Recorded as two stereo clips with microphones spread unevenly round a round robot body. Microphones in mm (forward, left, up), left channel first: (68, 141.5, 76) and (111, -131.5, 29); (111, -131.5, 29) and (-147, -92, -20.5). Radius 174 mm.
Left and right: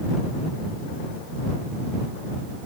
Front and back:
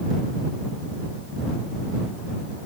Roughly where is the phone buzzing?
No phone buzzing in this recording.